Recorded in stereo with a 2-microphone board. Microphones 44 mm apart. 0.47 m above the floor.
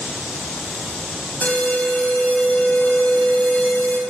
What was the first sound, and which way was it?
An alarm, 35° left (ahead or behind).